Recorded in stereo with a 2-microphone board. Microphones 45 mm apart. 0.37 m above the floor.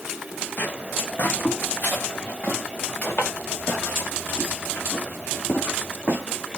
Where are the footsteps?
50° left (ahead or behind), 1.7 m; by 6.6 s 45° left (ahead or behind), 5 m.